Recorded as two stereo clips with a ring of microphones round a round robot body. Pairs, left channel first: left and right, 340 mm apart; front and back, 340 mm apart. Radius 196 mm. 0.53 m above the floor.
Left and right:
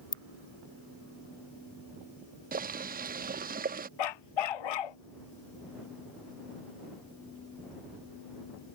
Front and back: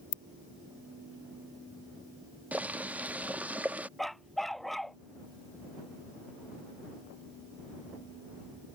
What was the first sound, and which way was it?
A ringtone, 15° left.